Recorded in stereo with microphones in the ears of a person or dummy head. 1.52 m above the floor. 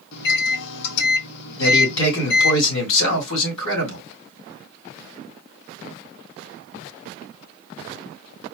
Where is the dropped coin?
No dropped coin in this recording.